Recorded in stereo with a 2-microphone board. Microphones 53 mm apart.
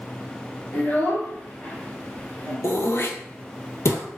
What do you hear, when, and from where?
0.7 s a child speaking: 40° left (ahead or behind), 1.4 m
2.6 s throat clearing: 65° left (ahead or behind), 0.5 m